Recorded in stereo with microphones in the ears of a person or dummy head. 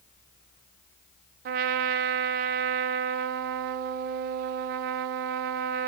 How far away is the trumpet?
About 0.8 m.